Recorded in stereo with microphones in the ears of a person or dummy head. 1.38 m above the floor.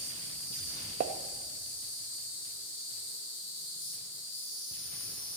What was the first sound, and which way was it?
An insect, 70° left (ahead or behind).